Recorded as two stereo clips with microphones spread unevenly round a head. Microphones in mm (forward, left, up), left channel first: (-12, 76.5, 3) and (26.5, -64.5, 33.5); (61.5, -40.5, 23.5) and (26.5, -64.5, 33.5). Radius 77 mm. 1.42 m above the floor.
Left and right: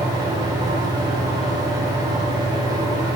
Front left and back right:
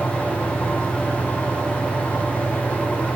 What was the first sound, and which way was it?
A fan, 10° right.